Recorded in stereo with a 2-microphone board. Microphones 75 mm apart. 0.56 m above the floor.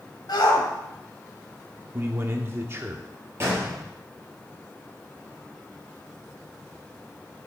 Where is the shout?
70° left (ahead or behind), 3 m.